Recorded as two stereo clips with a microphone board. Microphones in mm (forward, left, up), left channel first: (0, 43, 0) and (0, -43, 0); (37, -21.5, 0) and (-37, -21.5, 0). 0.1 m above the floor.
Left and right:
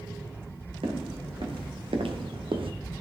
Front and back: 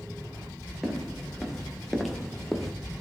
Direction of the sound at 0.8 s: 90° right.